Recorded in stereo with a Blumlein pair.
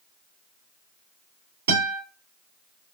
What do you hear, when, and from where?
1.7 s a guitar: 60° right, 2.5 m